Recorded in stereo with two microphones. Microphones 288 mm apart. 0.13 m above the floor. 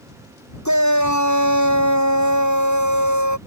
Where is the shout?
80° left.